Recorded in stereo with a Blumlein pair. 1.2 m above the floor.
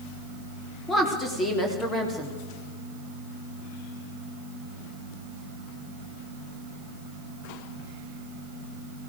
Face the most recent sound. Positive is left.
turn(degrees=15)